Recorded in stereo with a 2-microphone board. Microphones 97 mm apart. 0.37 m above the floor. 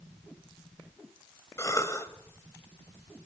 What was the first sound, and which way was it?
A cough, 30° left (ahead or behind).